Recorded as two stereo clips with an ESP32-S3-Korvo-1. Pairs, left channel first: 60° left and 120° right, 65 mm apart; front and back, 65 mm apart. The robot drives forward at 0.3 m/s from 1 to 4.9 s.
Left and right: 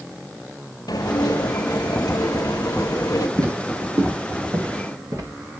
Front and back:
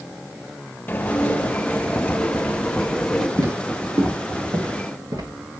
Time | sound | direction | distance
0.9 | dishes clattering | 60° left | 2.0 m
3.4 | footsteps | 150° right | 3.5 m